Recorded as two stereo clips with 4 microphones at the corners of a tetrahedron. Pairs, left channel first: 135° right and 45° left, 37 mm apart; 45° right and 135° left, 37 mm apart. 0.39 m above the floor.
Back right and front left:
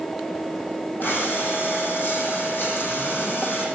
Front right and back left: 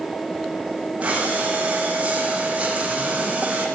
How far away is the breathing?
About 5.5 m.